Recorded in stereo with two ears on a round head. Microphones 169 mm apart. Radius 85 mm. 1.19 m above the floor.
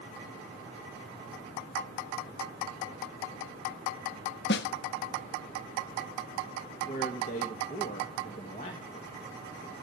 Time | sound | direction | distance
4.5 | a snare drum | 65° left (ahead or behind) | 0.8 m
6.9 | a man speaking | 40° left (ahead or behind) | 1.8 m